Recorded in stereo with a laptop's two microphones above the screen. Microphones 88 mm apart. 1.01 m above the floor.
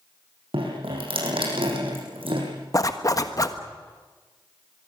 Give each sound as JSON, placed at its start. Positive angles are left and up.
{"t": 0.5, "sound": "dripping", "side_deg": -85, "distance_m": 7.0}
{"t": 2.7, "sound": "a zipper", "side_deg": 40, "distance_m": 1.3}